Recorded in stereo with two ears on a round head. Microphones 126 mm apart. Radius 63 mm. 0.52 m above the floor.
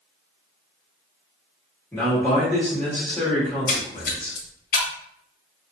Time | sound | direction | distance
1.9 | a man speaking | 10° left (ahead or behind) | 1.6 m
3.5 | a splash | 70° left (ahead or behind) | 0.7 m